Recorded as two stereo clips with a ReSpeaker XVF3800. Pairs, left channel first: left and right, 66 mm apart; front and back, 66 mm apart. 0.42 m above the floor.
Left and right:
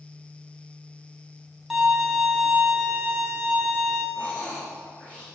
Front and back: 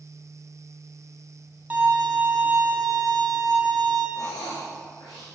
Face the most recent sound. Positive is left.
turn(degrees=25)